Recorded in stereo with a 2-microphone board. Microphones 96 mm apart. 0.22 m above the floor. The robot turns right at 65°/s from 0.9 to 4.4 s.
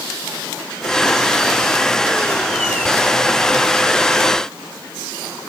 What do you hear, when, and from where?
Only background noise.